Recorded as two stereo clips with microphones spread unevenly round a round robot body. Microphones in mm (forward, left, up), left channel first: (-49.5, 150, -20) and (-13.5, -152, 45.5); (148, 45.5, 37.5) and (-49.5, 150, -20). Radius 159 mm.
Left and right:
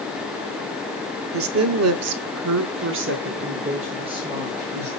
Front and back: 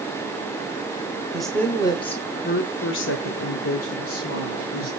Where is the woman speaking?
130° right, 1.2 m; by 4.9 s 5° left, 1.8 m.